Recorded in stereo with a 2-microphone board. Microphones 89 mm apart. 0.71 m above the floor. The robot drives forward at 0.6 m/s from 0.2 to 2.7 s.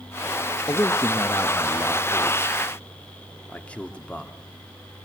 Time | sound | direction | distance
0.7 | a man speaking | 30° left (ahead or behind) | 0.6 m